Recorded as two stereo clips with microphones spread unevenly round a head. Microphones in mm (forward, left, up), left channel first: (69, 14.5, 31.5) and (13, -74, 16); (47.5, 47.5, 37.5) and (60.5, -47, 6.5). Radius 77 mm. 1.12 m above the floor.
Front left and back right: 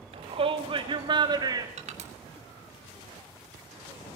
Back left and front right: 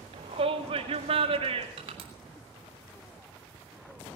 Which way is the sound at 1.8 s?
120° right.